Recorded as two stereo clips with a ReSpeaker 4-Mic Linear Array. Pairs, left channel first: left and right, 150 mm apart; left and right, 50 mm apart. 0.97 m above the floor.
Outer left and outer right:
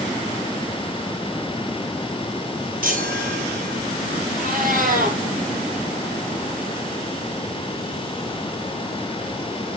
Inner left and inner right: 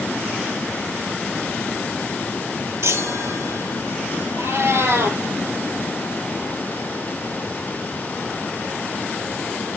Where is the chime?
80° right, 7 m.